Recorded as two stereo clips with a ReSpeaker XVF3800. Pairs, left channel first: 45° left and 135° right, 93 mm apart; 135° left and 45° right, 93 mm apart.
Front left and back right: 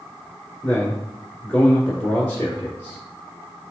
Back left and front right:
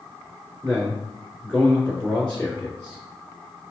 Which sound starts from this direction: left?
A man speaking, at 0.6 s.